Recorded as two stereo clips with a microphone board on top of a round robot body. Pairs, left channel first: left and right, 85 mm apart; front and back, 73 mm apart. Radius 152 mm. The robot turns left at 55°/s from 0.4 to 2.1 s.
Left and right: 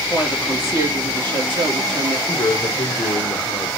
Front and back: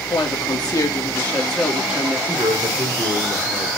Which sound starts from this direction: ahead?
A woman speaking, at 0.1 s.